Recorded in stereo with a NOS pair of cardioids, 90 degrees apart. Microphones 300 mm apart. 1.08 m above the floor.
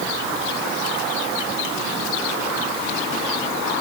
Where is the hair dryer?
I don't hear a hair dryer.